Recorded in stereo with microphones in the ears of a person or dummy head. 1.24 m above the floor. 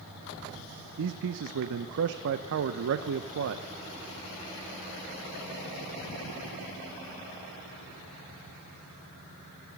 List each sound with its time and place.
1.0 s a man speaking: 65° right (ahead or behind), 0.6 m